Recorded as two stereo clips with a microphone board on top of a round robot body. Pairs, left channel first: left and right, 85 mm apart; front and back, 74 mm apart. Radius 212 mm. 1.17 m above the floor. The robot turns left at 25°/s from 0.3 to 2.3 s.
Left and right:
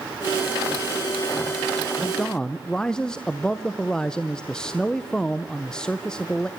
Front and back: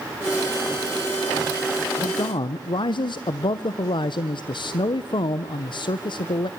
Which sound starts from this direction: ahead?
A man speaking, at 2.0 s.